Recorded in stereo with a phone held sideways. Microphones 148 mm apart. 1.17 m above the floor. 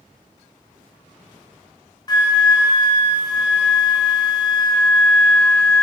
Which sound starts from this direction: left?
A flute, at 2.1 s.